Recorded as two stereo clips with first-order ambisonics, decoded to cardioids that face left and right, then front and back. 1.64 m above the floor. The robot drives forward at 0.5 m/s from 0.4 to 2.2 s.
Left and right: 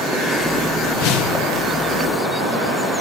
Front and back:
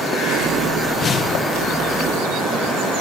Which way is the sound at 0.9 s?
70° left.